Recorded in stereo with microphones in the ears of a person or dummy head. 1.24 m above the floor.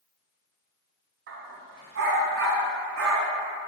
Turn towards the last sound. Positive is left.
turn(degrees=-70)  # may be behind; listen again after turning